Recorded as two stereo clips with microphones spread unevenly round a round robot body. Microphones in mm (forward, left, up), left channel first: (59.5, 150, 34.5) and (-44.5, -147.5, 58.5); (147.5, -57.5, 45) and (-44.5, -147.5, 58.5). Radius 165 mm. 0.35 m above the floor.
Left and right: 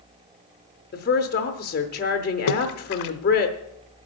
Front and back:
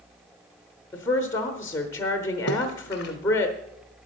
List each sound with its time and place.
0.9 s a woman speaking: 85° left, 0.9 m
2.5 s a splash: 80° left, 0.8 m